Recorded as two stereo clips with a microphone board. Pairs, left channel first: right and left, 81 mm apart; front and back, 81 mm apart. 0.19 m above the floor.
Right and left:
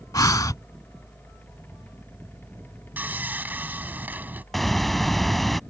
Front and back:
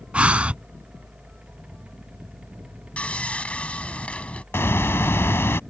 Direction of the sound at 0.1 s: 110° right.